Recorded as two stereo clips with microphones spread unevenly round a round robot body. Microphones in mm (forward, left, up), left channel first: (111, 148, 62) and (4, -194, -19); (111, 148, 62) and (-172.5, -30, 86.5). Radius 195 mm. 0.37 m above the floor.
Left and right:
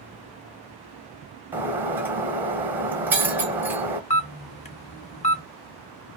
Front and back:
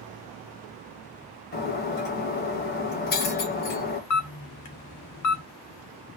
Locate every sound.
1.5 s breaking glass: 25° right, 0.6 m
4.1 s a camera shutter: 5° right, 0.7 m